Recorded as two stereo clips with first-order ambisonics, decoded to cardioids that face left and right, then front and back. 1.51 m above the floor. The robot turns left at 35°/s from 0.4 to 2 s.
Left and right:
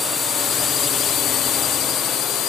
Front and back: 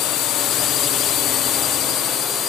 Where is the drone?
25° left; by 2.5 s 55° left.